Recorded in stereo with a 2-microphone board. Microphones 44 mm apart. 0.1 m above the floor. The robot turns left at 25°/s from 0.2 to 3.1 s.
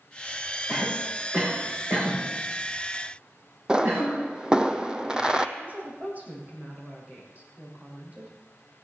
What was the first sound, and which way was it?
A cough, 15° right (ahead or behind).